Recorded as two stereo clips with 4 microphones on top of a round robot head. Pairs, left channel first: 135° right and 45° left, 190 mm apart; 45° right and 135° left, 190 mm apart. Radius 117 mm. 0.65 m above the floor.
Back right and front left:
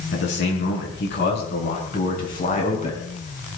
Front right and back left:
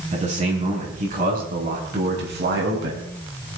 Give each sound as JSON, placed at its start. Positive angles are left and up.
{"t": 0.1, "sound": "a man speaking", "azimuth_deg": -165, "distance_m": 7.0}